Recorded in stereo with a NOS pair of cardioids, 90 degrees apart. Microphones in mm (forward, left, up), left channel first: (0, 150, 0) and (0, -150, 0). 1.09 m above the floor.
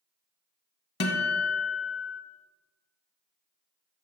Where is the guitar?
35° left, 1.1 m.